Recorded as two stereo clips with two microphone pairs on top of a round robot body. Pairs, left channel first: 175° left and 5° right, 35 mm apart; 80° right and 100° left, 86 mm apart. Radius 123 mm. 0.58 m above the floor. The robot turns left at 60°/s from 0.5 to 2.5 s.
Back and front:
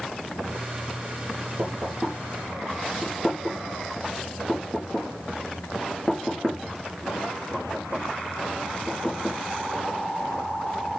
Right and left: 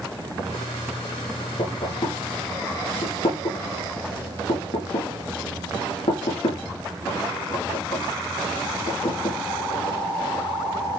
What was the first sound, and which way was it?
Knocking, 40° right.